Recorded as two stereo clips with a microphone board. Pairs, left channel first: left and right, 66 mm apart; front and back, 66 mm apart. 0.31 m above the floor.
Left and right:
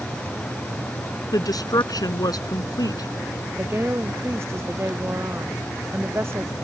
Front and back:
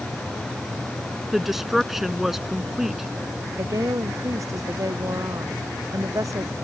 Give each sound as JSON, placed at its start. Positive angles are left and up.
{"t": 1.3, "sound": "a woman speaking", "azimuth_deg": 95}
{"t": 3.6, "sound": "a woman speaking", "azimuth_deg": -140}